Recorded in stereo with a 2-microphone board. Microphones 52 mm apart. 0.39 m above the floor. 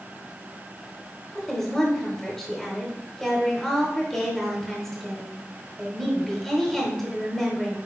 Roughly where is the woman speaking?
Centre.